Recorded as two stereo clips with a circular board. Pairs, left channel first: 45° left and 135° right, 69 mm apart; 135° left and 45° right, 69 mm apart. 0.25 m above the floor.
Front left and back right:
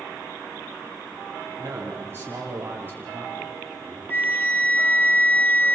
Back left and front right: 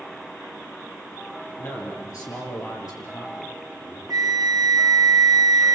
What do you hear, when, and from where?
1.6 s a man speaking: 175° left, 5 m; by 4.0 s 160° left, 6.5 m
4.1 s a flute: 20° right, 0.9 m